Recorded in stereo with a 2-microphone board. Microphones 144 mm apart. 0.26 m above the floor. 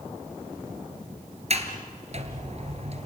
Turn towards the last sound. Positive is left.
turn(degrees=-50)  # may be behind; listen again after turning